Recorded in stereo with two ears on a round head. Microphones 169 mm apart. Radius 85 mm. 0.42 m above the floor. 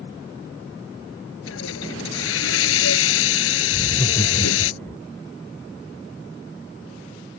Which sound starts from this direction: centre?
Laughter, at 3.7 s.